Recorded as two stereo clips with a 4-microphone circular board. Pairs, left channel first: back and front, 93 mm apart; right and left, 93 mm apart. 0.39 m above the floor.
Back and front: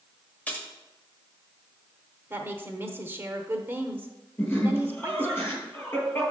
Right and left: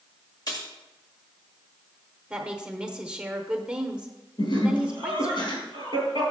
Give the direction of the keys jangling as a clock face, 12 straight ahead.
4 o'clock.